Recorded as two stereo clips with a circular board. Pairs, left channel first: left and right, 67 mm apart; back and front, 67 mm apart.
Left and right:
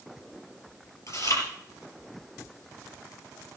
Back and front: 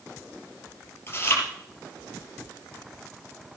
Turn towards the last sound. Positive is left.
turn(degrees=125)